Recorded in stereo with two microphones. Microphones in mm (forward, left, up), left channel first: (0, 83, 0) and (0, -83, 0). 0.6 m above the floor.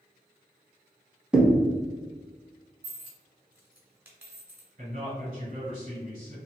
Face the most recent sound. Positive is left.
turn(degrees=-40)  # may be behind; listen again after turning